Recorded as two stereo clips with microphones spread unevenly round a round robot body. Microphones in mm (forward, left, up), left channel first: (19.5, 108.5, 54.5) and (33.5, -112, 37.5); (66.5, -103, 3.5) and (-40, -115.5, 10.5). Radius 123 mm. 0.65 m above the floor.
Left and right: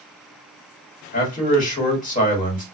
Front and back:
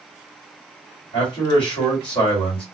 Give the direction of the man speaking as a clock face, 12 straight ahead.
11 o'clock.